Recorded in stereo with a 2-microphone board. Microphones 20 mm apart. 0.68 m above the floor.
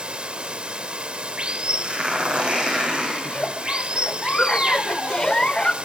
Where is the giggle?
50° left (ahead or behind), 0.6 m.